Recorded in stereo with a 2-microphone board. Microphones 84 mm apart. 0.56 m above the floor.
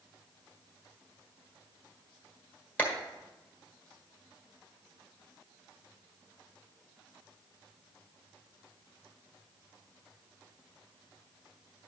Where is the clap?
15° left (ahead or behind), 1.6 m.